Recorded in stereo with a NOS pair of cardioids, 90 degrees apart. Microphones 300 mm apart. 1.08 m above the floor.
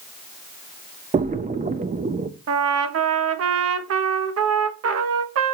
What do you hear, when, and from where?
1.1 s a splash: 25° right, 0.8 m
2.5 s a trumpet: 55° right, 1.2 m